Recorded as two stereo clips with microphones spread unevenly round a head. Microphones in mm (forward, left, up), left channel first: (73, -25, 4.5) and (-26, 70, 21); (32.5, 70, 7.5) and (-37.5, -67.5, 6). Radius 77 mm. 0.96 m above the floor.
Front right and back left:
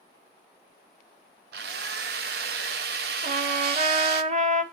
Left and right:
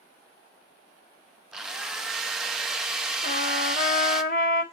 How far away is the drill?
About 0.8 m.